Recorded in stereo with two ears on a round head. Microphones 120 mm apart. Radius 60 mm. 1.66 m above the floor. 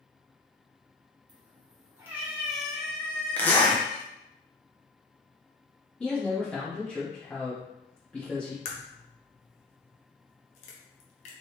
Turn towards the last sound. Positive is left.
turn(degrees=50)  # may be behind; listen again after turning